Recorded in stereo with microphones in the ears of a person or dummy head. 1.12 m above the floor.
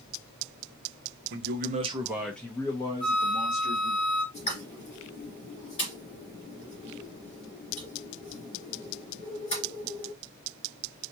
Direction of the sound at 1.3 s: 60° right (ahead or behind).